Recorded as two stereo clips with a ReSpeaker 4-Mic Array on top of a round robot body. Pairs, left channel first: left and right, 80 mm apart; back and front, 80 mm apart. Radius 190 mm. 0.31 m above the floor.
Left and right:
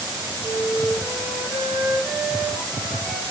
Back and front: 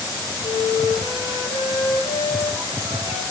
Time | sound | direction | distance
0.4 | a flute | 175° right | 4.5 m